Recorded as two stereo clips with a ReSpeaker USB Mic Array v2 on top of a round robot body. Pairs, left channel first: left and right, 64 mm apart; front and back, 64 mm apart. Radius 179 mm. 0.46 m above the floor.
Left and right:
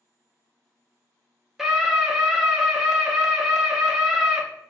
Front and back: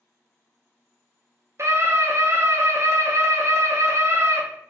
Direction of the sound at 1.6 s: 170° right.